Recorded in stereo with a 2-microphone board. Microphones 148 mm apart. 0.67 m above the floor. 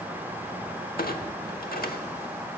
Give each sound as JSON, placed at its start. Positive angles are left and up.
{"t": 1.0, "sound": "a clunk", "side_deg": 85, "distance_m": 1.0}